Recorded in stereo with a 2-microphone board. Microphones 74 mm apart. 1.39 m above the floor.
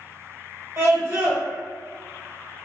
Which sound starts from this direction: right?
A scream, at 0.8 s.